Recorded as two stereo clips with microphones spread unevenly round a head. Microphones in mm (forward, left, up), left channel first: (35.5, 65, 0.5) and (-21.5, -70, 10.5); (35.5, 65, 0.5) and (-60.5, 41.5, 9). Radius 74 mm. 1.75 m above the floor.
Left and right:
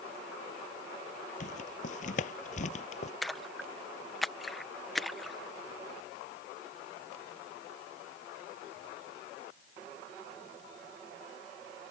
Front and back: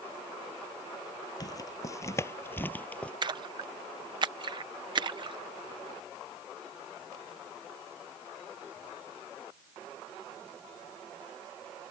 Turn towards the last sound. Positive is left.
turn(degrees=160)